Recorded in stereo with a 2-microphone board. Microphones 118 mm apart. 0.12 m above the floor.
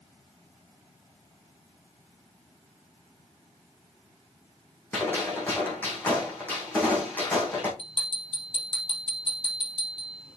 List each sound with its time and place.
4.9 s a gunshot: 15° left (ahead or behind), 3 m
7.8 s a bell: 45° left (ahead or behind), 3.5 m